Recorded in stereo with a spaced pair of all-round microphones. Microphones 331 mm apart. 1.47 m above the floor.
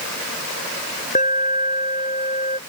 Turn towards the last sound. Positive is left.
turn(degrees=20)  # may be behind; listen again after turning